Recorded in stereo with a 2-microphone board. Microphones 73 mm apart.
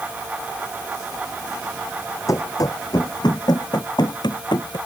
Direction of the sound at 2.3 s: 50° left (ahead or behind).